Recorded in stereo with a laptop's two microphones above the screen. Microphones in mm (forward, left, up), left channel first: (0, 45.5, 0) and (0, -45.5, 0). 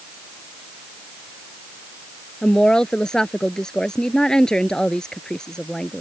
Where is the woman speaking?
5° left (ahead or behind).